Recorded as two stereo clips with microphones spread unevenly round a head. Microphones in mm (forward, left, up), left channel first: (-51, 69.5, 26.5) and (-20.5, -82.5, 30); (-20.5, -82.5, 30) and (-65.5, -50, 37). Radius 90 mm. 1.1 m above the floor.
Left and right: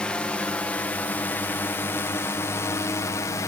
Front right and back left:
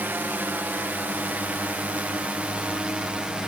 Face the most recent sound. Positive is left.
turn(degrees=80)